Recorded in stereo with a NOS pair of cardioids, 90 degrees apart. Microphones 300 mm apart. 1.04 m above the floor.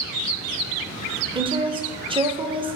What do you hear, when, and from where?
1.4 s a woman speaking: 20° right, 0.5 m